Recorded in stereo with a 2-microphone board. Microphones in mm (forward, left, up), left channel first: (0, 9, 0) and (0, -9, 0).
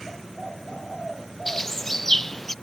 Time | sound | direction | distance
1.5 | a bird | 15° left (ahead or behind) | ?